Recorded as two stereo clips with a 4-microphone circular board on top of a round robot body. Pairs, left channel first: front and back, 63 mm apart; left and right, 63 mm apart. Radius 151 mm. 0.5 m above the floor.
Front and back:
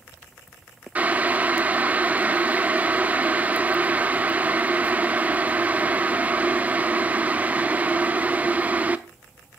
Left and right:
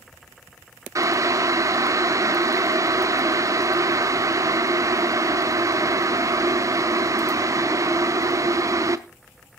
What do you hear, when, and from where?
0.9 s boiling: 115° right, 1.0 m